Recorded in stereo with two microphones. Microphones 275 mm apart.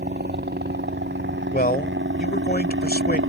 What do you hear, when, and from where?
0.0 s a helicopter: 35° right (ahead or behind); by 3.3 s 45° right (ahead or behind)
1.5 s a man speaking: 35° left (ahead or behind)